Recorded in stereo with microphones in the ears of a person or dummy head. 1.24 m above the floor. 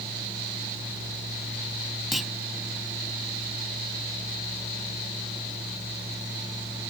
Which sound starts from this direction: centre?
A clunk, at 2.1 s.